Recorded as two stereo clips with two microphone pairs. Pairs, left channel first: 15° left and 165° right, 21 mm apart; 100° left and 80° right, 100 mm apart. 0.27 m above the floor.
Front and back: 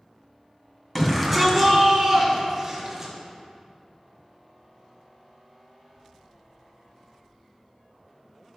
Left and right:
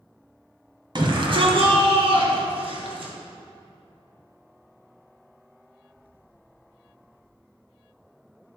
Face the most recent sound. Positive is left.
turn(degrees=-95)